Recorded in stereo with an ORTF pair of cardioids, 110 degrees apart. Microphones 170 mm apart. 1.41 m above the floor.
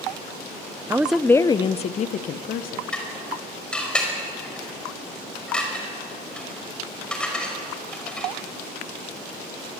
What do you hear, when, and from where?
0.9 s a woman speaking: 15° right, 0.6 m; by 2.8 s 60° left, 1.4 m
2.9 s dishes clattering: 5° left, 5.5 m